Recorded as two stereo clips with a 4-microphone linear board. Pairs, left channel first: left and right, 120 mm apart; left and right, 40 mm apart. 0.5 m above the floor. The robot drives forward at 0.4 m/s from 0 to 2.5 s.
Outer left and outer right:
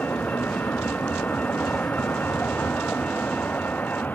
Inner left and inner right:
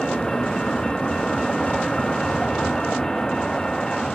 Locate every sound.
0.0 s a vehicle: 10° left (ahead or behind); by 4.2 s 15° left (ahead or behind)